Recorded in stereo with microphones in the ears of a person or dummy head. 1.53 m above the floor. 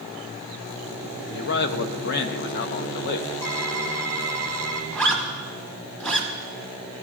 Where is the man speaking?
60° left (ahead or behind), 0.6 m.